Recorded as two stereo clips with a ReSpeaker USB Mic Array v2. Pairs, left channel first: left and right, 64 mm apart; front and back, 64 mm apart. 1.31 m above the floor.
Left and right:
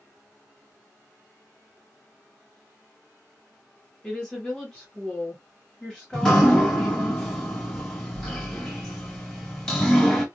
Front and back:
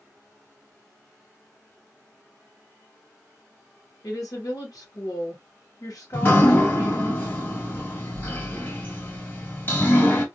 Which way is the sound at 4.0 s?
20° left.